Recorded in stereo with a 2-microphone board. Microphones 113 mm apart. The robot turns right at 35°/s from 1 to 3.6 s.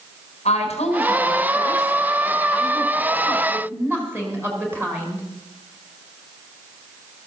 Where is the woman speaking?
110° left, 4.5 m; by 5.2 s 160° right, 4.5 m.